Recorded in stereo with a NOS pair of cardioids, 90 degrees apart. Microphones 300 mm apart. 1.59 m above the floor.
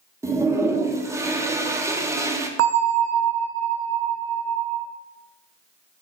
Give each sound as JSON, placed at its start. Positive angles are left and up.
{"t": 0.2, "sound": "a toilet flushing", "azimuth_deg": -10, "distance_m": 0.5}
{"t": 2.6, "sound": "a bell", "azimuth_deg": -55, "distance_m": 0.6}